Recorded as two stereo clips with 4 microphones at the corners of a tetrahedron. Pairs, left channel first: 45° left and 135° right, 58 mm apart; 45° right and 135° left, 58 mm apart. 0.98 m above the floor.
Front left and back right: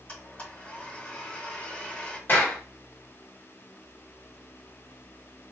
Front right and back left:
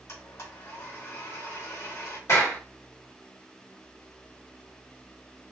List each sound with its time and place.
0.1 s a blender: 20° right, 1.4 m
2.3 s a clap: 10° right, 1.7 m